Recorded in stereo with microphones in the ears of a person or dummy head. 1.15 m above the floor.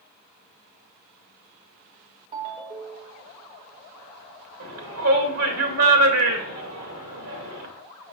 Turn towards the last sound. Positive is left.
turn(degrees=-75)  # may be behind; listen again after turning